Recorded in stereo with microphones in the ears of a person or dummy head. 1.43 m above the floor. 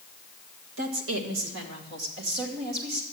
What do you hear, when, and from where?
0.8 s a woman speaking: 70° right (ahead or behind), 2.0 m; by 3.0 s 60° right (ahead or behind), 3 m